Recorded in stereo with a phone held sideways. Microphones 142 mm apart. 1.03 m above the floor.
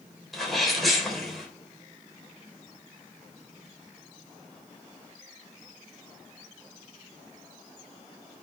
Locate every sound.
0.3 s a sneeze: centre (ahead or behind), 3.5 m